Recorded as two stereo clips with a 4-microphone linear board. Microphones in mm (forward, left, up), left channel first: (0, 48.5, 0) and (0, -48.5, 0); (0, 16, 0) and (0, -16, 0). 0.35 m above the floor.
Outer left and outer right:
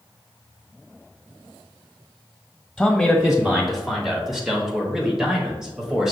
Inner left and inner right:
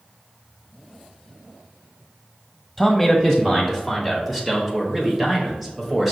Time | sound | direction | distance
2.8 | a man speaking | centre (ahead or behind) | 1.1 m